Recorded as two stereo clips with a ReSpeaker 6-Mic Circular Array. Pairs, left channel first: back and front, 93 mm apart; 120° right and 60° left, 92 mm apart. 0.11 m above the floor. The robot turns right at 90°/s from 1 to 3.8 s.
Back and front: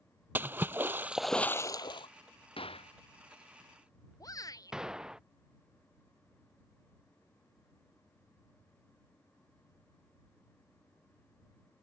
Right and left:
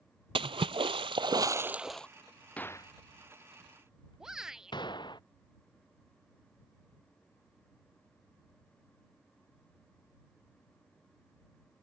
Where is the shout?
140° left.